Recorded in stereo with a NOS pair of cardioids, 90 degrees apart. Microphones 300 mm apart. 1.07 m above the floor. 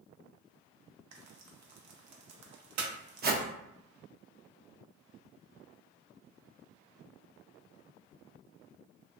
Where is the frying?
60° right, 0.6 m.